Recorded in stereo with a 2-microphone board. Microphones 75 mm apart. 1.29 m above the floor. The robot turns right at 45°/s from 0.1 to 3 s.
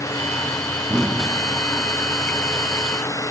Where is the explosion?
15° right (ahead or behind), 1.2 m; by 1.9 s 25° left (ahead or behind), 1.2 m.